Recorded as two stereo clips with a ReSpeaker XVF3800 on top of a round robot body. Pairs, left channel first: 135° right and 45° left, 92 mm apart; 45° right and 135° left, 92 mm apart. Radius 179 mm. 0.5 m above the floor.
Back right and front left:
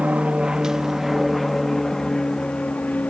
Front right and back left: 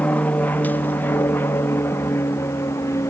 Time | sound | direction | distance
0.0 | an aircraft | 10° right | ?